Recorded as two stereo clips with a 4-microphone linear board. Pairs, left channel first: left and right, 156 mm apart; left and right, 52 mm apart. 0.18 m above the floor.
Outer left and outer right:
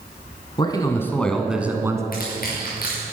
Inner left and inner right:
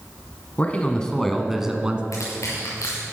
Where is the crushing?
70° left (ahead or behind), 5 m.